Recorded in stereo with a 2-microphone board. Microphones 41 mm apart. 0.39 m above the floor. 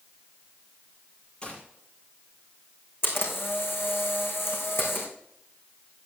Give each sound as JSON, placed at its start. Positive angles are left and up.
{"t": 1.4, "sound": "a gunshot", "side_deg": 20, "distance_m": 6.0}
{"t": 3.0, "sound": "a camera shutter", "side_deg": 85, "distance_m": 4.5}